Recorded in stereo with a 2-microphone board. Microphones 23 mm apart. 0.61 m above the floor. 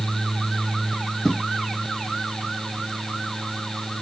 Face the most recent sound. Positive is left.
turn(degrees=15)  # may be behind; listen again after turning